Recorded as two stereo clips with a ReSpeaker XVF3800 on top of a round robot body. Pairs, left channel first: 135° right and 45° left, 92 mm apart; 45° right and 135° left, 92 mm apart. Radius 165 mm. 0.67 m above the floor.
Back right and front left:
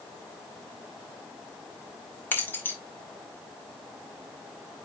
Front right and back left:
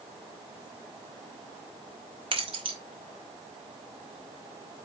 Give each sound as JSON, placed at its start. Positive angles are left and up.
{"t": 2.3, "sound": "keys jangling", "azimuth_deg": 155, "distance_m": 2.5}